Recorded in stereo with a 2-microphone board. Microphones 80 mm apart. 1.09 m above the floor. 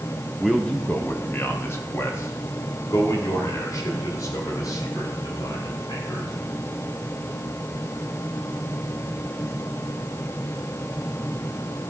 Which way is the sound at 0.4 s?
Centre (ahead or behind).